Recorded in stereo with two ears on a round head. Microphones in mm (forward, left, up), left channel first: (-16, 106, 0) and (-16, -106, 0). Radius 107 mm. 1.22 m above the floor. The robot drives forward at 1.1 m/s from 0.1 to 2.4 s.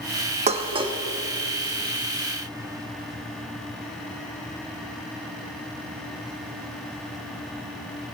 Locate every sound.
0.5 s dishes clattering: 30° right (ahead or behind), 0.9 m; by 1.0 s 20° right (ahead or behind), 1.4 m